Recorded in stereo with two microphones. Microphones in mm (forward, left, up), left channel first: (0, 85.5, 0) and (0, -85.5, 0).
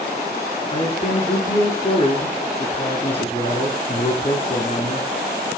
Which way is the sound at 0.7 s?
30° left (ahead or behind).